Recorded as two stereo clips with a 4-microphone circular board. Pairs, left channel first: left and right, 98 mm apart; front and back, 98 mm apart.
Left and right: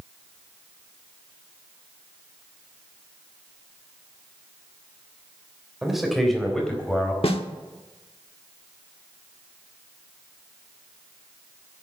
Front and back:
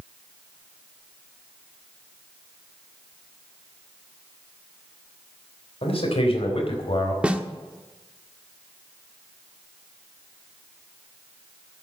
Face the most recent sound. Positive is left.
turn(degrees=105)